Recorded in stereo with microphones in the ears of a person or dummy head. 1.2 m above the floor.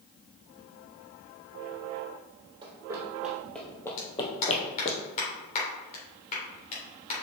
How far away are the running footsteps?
About 1.8 m.